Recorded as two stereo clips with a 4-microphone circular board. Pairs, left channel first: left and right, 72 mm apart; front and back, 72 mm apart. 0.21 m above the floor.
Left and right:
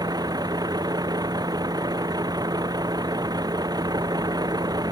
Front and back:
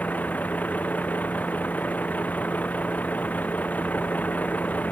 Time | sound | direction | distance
0.0 | a vehicle | 70° right | ?